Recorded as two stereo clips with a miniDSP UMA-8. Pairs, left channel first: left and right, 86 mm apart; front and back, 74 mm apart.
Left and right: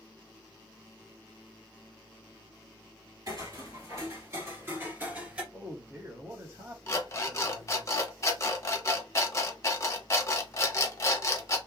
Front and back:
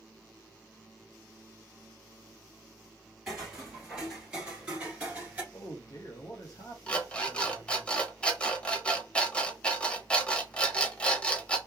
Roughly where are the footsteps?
Right.